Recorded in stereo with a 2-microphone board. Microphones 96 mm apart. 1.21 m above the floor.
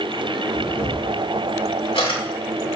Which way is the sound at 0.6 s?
75° left (ahead or behind).